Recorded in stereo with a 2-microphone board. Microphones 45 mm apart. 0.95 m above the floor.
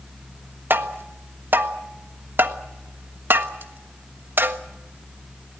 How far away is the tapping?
About 1.3 m.